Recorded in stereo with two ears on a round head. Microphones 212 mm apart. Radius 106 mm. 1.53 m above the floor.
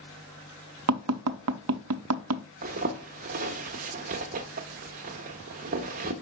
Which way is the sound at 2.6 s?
35° right (ahead or behind).